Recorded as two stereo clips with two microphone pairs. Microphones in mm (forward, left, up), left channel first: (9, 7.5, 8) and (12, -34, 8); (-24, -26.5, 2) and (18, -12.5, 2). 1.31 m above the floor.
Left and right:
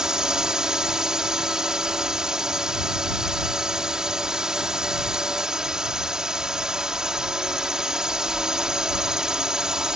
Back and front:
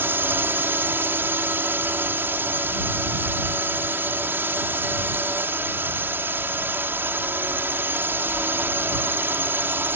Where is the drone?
15° right.